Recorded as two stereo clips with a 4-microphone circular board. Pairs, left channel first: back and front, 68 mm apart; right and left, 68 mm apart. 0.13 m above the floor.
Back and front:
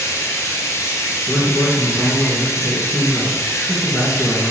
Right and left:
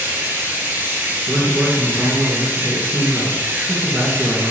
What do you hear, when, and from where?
0.0 s running water: 145° left, 0.9 m
1.3 s a man speaking: 95° left, 1.6 m